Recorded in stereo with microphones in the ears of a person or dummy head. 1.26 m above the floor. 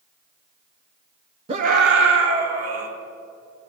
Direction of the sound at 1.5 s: 30° right (ahead or behind).